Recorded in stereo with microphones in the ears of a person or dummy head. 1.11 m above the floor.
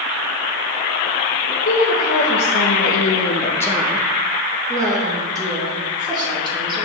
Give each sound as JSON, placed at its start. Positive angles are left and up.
{"t": 1.6, "sound": "a woman speaking", "side_deg": 45, "distance_m": 1.2}